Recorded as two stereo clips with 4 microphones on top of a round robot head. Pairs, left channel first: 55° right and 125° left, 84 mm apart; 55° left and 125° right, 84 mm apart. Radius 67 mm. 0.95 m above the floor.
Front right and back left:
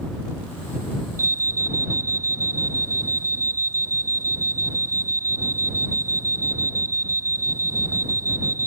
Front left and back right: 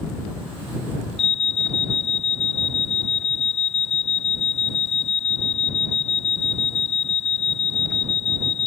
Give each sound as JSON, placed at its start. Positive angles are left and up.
{"t": 1.2, "sound": "an alarm", "azimuth_deg": 65}